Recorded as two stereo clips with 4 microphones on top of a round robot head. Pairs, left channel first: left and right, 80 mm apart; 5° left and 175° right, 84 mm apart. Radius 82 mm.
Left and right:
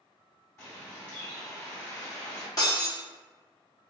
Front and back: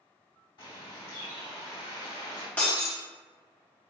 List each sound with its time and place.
0.6 s a bird: 35° left, 1.7 m
2.6 s breaking glass: 70° left, 0.7 m